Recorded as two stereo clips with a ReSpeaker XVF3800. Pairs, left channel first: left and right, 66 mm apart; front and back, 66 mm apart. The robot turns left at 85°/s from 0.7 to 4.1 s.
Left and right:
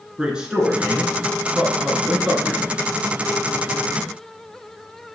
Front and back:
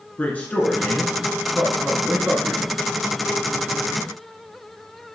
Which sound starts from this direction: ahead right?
A man speaking, at 0.2 s.